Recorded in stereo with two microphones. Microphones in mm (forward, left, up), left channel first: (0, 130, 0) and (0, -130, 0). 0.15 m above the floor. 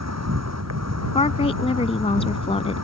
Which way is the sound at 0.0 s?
85° right.